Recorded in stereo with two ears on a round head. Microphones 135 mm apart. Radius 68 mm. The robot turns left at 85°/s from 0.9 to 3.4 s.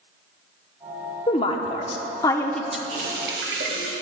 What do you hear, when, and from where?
1.3 s a woman speaking: 125° left, 0.8 m; by 2.8 s 5° right, 0.8 m
2.9 s a running tap: 40° right, 1.7 m; by 3.9 s 85° right, 1.7 m